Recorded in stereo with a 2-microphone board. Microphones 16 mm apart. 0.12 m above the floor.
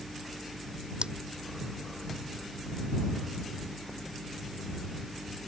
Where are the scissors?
75° right (ahead or behind).